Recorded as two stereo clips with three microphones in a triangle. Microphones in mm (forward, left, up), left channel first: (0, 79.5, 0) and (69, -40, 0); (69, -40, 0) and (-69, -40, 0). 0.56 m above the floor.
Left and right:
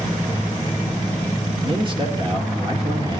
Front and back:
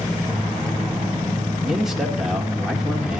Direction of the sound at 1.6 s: 95° right.